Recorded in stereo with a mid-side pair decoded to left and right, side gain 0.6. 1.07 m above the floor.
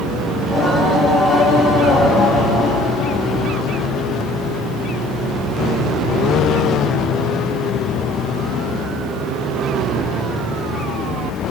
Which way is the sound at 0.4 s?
30° left.